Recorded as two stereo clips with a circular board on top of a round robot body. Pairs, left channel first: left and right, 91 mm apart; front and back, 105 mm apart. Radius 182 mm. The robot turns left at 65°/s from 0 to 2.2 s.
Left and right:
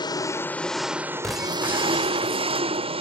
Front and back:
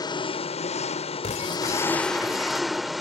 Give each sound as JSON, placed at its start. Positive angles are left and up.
{"t": 0.0, "sound": "an engine running", "azimuth_deg": 50}
{"t": 1.2, "sound": "breaking glass", "azimuth_deg": 5}